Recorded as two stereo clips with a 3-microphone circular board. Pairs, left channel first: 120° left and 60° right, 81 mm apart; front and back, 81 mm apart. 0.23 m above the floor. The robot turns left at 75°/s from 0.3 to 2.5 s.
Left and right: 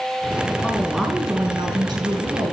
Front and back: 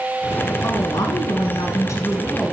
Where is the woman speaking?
50° left, 2 m; by 2.5 s 90° right, 2 m.